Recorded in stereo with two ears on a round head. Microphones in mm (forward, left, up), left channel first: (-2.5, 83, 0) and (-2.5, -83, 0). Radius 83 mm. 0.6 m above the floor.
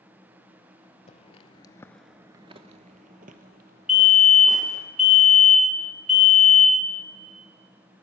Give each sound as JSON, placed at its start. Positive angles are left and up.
{"t": 1.1, "sound": "footsteps", "side_deg": 35, "distance_m": 1.0}
{"t": 3.9, "sound": "a fire alarm", "side_deg": 0, "distance_m": 2.5}